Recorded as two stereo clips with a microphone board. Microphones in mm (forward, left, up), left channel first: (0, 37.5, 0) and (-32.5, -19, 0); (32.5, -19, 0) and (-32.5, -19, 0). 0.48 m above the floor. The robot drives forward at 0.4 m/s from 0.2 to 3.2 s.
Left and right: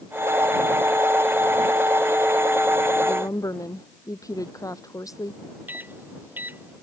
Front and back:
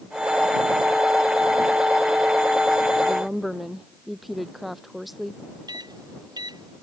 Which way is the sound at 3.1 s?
90° left.